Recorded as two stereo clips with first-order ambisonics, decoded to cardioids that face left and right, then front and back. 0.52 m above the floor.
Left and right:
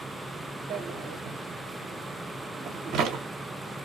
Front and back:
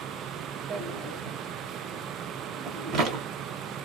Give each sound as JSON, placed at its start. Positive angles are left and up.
{"t": 0.7, "sound": "a drawer", "azimuth_deg": -135, "distance_m": 0.7}